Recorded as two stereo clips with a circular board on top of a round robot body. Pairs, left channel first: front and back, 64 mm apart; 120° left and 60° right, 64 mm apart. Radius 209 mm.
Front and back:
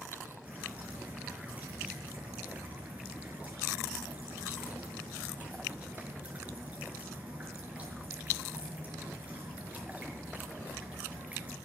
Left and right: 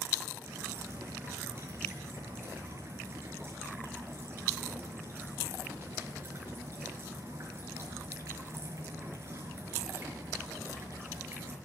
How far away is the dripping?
About 5 m.